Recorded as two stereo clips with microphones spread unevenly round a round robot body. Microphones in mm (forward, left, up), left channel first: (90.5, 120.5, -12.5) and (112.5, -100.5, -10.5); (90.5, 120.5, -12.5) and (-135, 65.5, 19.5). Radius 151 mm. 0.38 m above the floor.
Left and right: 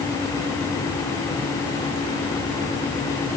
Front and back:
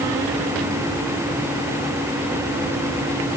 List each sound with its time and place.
Only background noise.